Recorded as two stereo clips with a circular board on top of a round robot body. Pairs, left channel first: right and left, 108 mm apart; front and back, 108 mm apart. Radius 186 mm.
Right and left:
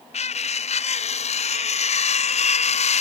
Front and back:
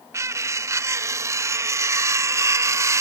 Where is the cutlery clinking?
115° right.